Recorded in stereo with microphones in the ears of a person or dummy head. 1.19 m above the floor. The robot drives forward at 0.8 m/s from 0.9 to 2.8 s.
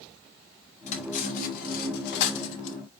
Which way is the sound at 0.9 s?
40° left (ahead or behind).